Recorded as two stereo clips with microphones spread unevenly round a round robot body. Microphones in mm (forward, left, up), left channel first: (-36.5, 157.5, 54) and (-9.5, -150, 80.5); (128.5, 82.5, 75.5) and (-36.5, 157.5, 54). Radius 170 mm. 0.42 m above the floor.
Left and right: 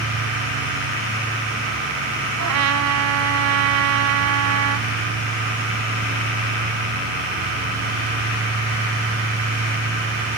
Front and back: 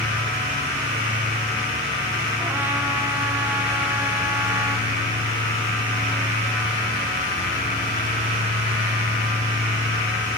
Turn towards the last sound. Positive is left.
turn(degrees=-120)